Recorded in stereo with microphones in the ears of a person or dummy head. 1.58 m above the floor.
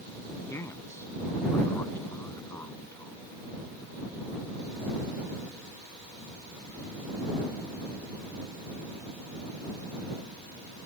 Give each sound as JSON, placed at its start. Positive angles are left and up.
{"t": 0.5, "sound": "a man speaking", "side_deg": 15}